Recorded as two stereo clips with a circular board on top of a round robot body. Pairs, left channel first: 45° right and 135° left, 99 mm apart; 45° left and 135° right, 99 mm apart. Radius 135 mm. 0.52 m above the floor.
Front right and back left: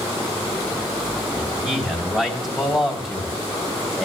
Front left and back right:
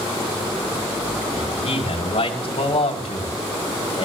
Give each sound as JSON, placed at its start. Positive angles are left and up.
{"t": 1.4, "sound": "a man speaking", "azimuth_deg": 50, "distance_m": 5.0}